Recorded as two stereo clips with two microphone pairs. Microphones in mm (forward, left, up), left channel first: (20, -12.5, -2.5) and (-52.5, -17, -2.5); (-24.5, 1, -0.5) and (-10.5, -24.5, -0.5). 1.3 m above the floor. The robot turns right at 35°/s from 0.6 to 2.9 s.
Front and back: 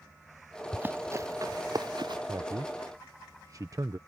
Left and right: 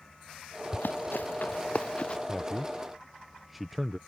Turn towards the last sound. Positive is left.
turn(degrees=-150)